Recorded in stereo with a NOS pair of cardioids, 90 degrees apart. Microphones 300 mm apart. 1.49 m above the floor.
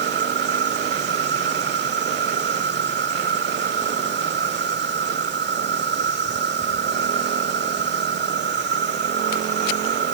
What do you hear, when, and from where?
0.0 s an insect: 35° right